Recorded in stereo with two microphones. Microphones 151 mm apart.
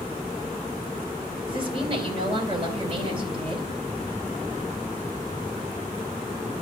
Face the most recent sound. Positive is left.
turn(degrees=-40)  # may be behind; listen again after turning